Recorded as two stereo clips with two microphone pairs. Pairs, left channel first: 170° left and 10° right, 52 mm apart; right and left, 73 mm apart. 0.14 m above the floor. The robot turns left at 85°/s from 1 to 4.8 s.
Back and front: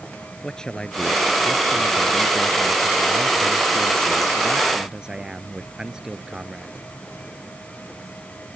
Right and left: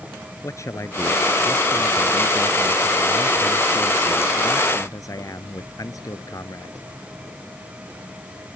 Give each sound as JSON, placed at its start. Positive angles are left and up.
{"t": 0.4, "sound": "a man speaking", "azimuth_deg": -120}